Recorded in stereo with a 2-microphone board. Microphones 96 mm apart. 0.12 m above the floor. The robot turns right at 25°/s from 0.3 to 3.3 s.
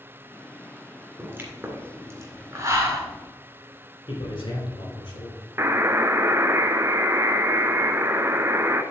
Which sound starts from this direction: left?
A man speaking, at 4.1 s.